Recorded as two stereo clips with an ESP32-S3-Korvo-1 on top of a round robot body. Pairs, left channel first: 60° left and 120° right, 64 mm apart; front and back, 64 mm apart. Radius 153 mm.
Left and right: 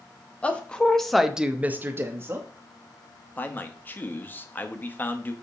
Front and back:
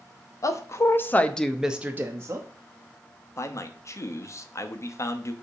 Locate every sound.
0.4 s a woman speaking: 5° right, 1.3 m; by 2.5 s 155° right, 1.2 m
3.4 s a man speaking: 10° left, 1.1 m